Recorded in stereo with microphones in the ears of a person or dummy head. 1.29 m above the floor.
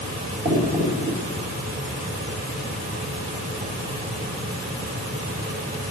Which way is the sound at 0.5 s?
40° right (ahead or behind).